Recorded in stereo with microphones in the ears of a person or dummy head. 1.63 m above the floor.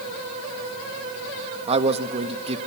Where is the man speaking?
30° right (ahead or behind), 0.9 m.